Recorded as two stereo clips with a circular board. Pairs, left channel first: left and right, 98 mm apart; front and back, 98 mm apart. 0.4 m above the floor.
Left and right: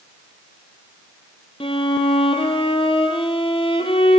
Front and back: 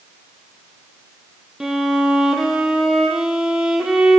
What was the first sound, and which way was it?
A violin, 95° left.